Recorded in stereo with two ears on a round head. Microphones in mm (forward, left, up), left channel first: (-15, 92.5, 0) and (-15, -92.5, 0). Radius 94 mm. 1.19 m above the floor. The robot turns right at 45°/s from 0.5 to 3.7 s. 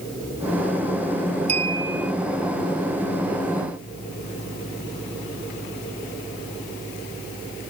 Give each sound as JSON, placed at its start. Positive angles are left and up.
{"t": 1.5, "sound": "a clink", "side_deg": -30}